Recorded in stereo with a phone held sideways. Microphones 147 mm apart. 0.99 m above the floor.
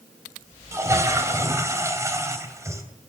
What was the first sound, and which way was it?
A toilet flushing, 20° right (ahead or behind).